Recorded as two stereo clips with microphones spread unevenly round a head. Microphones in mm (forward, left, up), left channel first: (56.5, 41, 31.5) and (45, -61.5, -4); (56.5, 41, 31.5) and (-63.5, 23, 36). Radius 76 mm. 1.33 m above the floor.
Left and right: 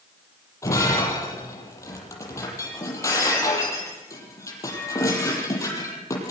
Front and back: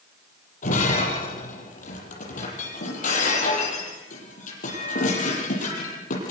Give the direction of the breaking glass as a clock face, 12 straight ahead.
11 o'clock.